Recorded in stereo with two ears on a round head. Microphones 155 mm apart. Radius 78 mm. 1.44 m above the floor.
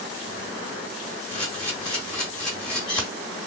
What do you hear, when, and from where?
1.3 s a camera shutter: 5° left (ahead or behind), 1.3 m